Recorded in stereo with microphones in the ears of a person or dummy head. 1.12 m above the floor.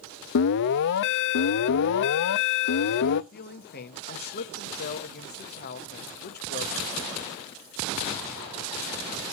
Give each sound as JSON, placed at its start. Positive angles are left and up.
{"t": 0.3, "sound": "an alarm", "side_deg": 60, "distance_m": 0.7}
{"t": 3.3, "sound": "a man speaking", "side_deg": 45, "distance_m": 1.7}